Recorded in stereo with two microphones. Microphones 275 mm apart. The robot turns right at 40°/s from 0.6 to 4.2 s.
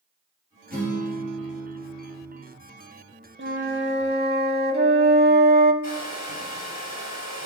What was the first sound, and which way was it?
A guitar, 35° right.